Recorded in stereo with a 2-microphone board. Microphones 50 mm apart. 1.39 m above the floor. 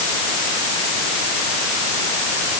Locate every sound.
Only background noise.